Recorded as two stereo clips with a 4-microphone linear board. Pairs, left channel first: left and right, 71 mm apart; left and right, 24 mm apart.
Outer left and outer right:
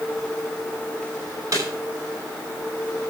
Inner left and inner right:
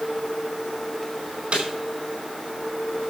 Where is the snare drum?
50° right (ahead or behind), 4.5 m.